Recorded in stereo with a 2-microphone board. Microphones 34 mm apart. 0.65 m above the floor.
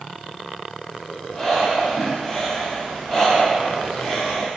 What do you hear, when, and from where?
1.3 s breathing: 15° left (ahead or behind), 0.7 m